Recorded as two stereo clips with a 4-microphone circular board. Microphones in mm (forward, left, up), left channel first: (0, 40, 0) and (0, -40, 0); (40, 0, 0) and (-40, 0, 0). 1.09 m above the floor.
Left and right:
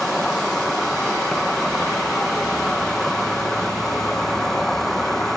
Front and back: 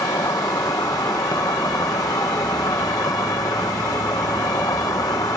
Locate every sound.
0.0 s an insect: 5° left